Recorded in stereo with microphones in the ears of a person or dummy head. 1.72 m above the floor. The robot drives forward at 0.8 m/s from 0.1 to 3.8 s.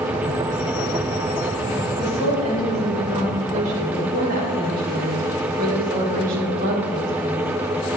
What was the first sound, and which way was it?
A woman speaking, 35° right (ahead or behind).